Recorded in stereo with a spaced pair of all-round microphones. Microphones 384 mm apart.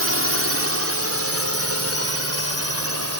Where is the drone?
35° right (ahead or behind); by 3.2 s 40° right (ahead or behind).